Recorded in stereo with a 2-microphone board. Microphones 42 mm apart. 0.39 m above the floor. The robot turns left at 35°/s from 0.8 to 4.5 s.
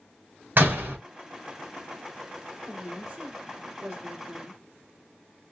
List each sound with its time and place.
0.6 s a door slam: 45° right (ahead or behind), 1.5 m; by 1.0 s 40° right (ahead or behind), 1.5 m
2.7 s a woman speaking: 20° right (ahead or behind), 1.2 m; by 4.6 s 25° right (ahead or behind), 1.2 m